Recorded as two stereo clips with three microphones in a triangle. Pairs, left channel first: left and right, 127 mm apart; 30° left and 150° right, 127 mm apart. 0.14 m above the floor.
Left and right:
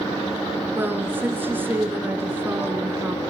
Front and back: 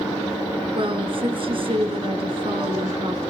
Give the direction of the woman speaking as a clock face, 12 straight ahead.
5 o'clock.